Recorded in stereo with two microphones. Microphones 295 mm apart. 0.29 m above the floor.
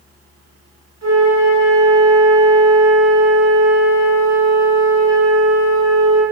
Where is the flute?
70° right (ahead or behind), 0.8 m.